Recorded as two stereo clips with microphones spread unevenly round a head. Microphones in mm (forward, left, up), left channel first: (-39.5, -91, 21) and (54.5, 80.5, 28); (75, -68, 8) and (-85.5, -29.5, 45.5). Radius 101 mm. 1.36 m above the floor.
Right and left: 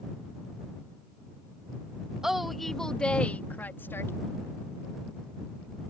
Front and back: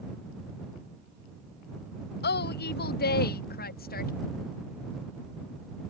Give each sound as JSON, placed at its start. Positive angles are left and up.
{"t": 2.2, "sound": "a woman speaking", "azimuth_deg": -25}